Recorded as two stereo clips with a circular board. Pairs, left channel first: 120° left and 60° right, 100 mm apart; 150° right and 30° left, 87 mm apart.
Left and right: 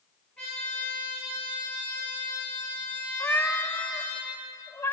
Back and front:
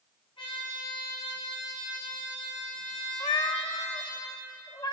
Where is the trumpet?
160° right, 5.5 m.